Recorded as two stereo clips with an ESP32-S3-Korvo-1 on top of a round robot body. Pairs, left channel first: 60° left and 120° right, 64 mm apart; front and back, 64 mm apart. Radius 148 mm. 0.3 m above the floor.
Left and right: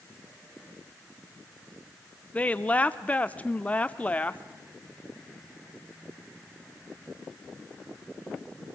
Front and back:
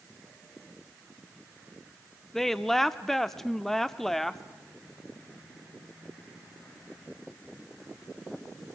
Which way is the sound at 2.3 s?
80° left.